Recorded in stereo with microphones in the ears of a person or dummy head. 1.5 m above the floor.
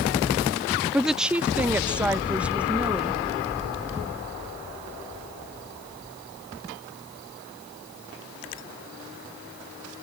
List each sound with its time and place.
0.9 s a woman speaking: 5° right (ahead or behind); by 3.2 s 10° right (ahead or behind)